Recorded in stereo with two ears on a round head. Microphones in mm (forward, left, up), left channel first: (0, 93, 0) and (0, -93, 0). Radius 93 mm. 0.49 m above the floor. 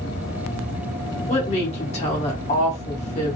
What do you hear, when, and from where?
1.3 s a woman speaking: 30° left (ahead or behind), 1.1 m